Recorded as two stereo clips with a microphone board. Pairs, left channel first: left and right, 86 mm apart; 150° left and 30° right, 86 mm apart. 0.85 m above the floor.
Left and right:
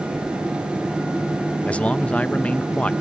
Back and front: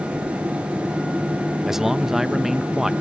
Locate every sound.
1.7 s a man speaking: 45° left